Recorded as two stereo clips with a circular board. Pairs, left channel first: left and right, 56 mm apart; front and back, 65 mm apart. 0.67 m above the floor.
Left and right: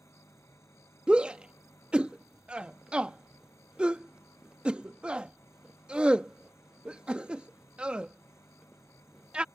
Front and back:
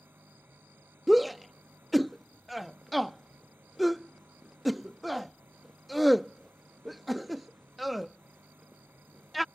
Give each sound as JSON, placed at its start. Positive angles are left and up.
{"t": 0.0, "sound": "an engine running", "azimuth_deg": 120}
{"t": 1.1, "sound": "a shout", "azimuth_deg": -95}